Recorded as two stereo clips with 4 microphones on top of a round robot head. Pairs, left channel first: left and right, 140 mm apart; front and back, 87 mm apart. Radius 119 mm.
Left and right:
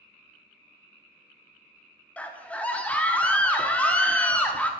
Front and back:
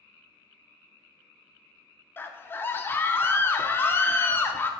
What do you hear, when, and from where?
2.2 s a scream: 20° left, 0.7 m